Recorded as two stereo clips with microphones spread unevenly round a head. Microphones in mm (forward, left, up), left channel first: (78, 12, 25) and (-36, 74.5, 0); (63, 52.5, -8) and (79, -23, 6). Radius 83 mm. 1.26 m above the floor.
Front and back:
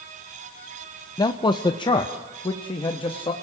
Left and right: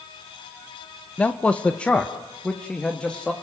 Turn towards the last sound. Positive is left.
turn(degrees=25)